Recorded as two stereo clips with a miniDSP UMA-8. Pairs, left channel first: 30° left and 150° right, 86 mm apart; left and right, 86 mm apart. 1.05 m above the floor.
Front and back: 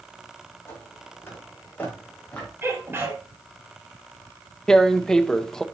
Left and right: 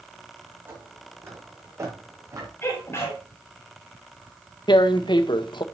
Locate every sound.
0.7 s footsteps: 25° right, 3.5 m; by 2.5 s 45° right, 3.5 m
2.6 s a sneeze: 145° left, 6.5 m
4.7 s tearing paper: 115° left, 0.7 m